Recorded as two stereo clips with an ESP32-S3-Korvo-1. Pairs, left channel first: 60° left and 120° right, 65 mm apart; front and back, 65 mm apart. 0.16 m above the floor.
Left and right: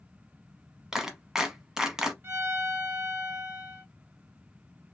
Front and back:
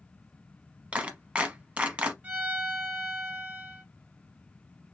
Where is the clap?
175° left, 0.8 m.